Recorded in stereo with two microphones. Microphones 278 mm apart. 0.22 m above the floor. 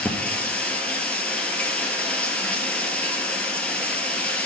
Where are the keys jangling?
No keys jangling in this recording.